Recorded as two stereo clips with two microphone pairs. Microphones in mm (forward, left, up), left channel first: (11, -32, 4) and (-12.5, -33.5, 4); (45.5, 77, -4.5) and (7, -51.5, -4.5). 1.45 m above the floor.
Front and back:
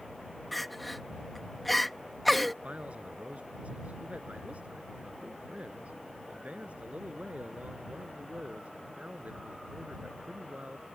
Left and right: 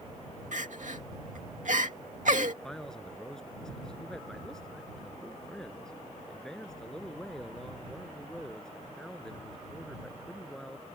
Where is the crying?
85° right.